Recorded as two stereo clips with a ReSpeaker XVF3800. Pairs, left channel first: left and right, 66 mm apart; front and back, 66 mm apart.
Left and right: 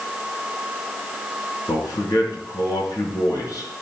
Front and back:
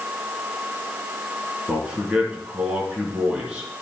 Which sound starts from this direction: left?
A man speaking, at 1.7 s.